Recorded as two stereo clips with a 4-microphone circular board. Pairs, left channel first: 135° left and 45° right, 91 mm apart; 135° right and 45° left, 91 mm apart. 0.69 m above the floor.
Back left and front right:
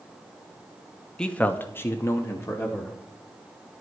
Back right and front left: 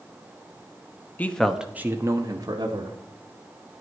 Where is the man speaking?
155° right, 0.8 m; by 3.0 s 80° left, 1.7 m.